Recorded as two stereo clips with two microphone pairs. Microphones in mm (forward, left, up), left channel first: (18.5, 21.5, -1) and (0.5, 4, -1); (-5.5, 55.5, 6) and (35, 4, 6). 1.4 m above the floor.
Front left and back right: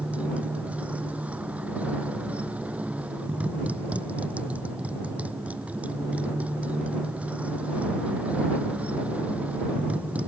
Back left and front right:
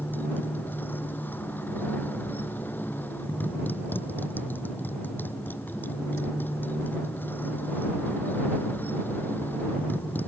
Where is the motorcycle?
170° right.